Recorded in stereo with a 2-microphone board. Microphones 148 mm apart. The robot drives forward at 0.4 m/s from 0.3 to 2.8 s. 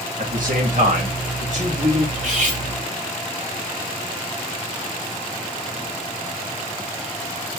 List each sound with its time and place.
0.2 s a man speaking: 65° right (ahead or behind), 1.9 m; by 2.0 s 55° right (ahead or behind), 2 m
2.1 s cutlery clinking: 60° right (ahead or behind), 1.6 m; by 2.6 s 55° right (ahead or behind), 1.7 m